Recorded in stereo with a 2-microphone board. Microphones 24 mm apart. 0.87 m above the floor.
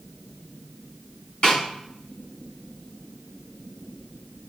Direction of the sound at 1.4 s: 35° left (ahead or behind).